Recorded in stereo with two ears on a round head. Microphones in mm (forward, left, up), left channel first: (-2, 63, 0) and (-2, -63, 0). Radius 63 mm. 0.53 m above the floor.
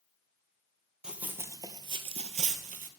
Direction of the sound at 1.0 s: 5° right (ahead or behind).